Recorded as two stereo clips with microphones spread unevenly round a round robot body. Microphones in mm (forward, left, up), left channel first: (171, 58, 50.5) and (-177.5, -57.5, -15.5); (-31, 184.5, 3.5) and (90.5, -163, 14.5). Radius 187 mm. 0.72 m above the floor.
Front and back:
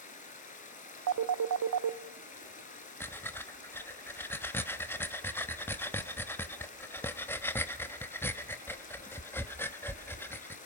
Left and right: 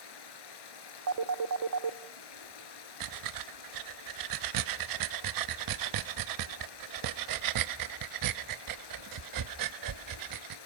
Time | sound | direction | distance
0.0 | running water | 85° left | 3.5 m
1.1 | a phone ringing | 125° right | 0.8 m
3.0 | breathing | 75° right | 0.8 m